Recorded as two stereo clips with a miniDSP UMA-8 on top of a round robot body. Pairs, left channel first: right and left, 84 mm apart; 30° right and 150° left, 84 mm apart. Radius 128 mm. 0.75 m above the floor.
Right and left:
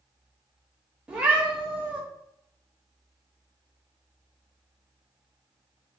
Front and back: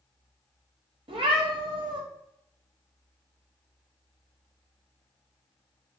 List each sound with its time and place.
1.1 s a cat meowing: 170° left, 0.9 m